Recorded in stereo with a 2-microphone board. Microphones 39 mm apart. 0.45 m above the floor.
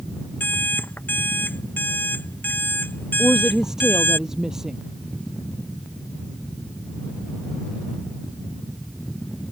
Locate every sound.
0.4 s an alarm clock: 55° left (ahead or behind)
3.2 s a woman speaking: 15° right (ahead or behind)